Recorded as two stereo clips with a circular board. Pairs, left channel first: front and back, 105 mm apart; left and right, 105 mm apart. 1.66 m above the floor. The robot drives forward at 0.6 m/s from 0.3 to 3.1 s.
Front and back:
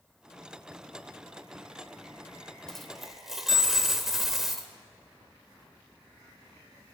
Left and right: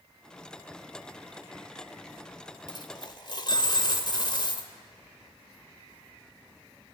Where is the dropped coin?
80° left, 1.8 m; by 4.7 s 95° left, 1.8 m.